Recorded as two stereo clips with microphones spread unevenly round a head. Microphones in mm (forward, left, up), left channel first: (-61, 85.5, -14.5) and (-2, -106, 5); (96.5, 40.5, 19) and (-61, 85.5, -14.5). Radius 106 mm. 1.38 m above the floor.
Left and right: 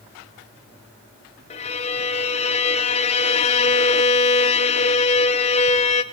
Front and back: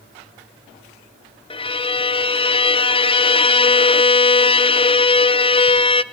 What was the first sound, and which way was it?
A violin, 45° left.